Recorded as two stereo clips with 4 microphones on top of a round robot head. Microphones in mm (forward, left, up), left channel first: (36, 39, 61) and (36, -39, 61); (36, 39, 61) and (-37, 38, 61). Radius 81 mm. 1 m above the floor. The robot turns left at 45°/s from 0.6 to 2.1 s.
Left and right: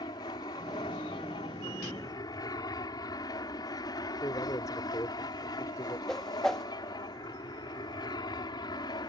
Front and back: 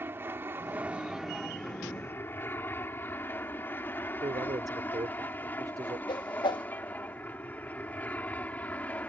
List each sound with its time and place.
0.0 s an aircraft: 125° left; by 9.1 s 70° left
4.2 s a man speaking: 145° left
6.1 s a whoosh: 5° left